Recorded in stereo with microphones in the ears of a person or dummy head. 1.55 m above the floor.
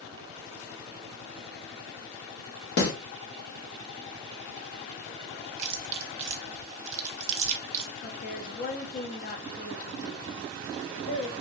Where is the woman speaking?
45° left (ahead or behind), 0.6 m.